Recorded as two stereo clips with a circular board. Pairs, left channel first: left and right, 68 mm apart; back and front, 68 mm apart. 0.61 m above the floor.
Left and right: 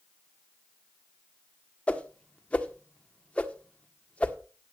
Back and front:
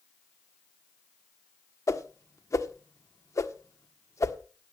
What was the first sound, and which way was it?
A whoosh, 155° left.